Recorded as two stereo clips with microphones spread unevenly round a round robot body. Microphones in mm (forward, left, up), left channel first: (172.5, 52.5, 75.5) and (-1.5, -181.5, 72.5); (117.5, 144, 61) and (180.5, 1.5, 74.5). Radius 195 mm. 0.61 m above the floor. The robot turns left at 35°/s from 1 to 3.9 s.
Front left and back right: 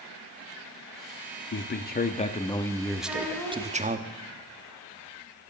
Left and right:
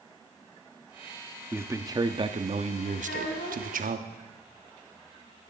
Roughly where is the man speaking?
Ahead.